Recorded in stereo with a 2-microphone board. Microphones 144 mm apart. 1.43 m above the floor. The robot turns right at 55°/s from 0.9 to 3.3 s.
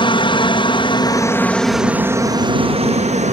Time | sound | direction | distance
0.0 | a helicopter | 135° left | ?